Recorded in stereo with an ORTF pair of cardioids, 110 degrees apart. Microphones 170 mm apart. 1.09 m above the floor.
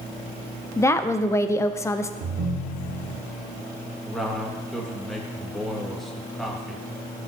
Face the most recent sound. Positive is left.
turn(degrees=0)